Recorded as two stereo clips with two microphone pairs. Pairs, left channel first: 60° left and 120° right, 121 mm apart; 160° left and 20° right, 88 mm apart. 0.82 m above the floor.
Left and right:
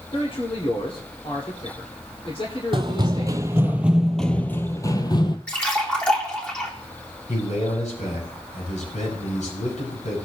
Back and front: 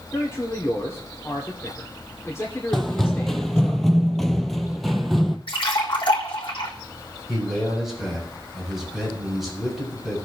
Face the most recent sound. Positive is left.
turn(degrees=65)